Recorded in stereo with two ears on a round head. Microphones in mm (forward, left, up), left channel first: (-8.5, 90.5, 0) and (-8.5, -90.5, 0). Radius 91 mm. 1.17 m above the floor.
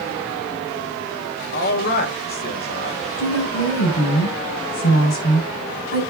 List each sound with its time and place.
1.5 s a man speaking: 50° left (ahead or behind), 2.5 m
3.2 s a woman speaking: 80° left, 6.5 m